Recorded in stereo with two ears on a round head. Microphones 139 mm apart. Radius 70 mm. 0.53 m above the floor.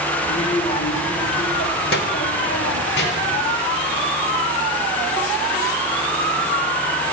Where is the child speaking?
20° left (ahead or behind), 1.2 m; by 3.4 s 75° left (ahead or behind), 2 m.